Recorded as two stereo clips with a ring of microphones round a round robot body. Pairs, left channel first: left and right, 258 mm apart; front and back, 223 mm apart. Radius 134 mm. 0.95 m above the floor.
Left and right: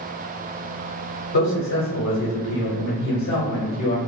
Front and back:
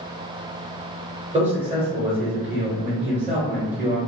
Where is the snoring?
I don't hear snoring.